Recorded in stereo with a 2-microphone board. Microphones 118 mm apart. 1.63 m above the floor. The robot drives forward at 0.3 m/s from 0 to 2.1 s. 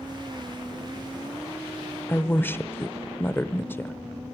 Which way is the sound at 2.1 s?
20° left (ahead or behind).